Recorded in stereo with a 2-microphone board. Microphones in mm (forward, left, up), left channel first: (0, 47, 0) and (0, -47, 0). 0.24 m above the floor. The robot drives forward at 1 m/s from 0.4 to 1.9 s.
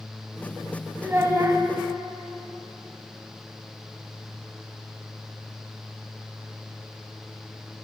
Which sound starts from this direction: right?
A child speaking, at 1.0 s.